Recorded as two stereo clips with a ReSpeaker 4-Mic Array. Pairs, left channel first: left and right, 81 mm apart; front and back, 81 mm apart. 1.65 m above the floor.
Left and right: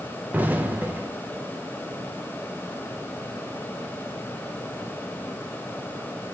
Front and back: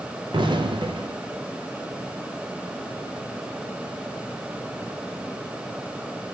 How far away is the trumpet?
No trumpet in this recording.